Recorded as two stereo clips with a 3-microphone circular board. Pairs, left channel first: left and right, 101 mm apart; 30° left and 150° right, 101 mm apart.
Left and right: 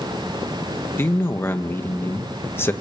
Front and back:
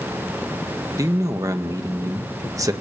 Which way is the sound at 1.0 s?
155° left.